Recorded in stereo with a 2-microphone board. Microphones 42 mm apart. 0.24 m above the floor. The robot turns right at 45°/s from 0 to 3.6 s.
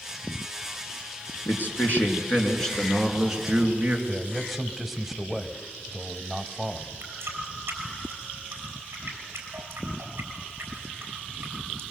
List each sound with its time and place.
1.4 s a man speaking: 110° left, 3 m; by 4.0 s 150° right, 3 m
4.1 s a man speaking: 5° right (ahead or behind), 1.1 m
7.0 s a running tap: 65° right (ahead or behind), 3.5 m